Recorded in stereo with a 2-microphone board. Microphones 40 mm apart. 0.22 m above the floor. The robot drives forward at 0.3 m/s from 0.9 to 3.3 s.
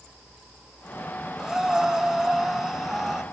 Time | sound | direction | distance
1.4 | breathing | 10° right (ahead or behind) | 1.0 m